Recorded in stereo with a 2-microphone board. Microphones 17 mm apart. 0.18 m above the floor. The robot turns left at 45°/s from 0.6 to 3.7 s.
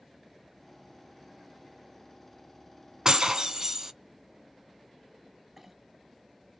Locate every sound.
3.0 s breaking glass: 45° right (ahead or behind), 0.7 m; by 3.9 s 35° right (ahead or behind), 0.7 m
5.6 s a clink: 15° right (ahead or behind), 0.6 m